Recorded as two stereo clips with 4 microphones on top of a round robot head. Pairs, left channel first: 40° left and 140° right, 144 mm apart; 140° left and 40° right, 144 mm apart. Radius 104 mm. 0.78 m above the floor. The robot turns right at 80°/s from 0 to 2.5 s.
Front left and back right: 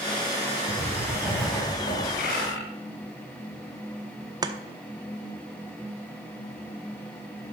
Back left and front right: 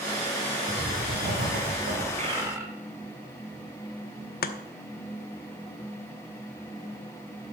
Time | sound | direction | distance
0.7 | writing | 110° right | 5 m
2.1 | a bird | 5° left | 2 m
4.4 | chopping | 155° left | 0.9 m